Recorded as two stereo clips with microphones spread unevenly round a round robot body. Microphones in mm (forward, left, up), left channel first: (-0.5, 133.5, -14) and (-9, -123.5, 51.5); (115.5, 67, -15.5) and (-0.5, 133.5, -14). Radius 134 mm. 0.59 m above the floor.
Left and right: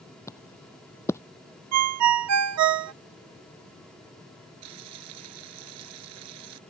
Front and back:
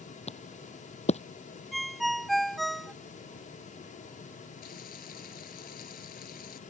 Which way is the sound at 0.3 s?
Straight ahead.